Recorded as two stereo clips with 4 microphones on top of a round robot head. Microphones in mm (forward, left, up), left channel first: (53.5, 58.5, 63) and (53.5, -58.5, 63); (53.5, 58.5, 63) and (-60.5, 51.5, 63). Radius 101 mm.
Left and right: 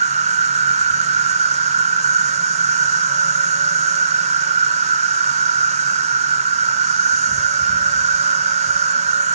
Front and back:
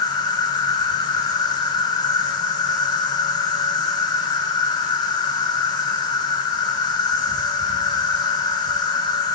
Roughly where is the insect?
Ahead right.